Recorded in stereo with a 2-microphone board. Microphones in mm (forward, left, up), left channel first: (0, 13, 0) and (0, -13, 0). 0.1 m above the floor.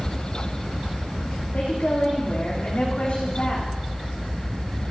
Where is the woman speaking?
60° left (ahead or behind), 7 m; by 3.7 s 55° left (ahead or behind), 8 m.